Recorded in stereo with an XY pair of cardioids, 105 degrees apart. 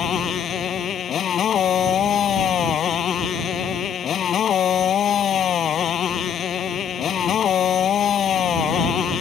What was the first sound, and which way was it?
A motorcycle, 55° left.